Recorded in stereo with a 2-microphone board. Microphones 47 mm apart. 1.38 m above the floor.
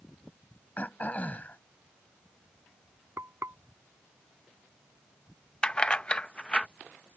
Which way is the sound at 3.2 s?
70° right (ahead or behind).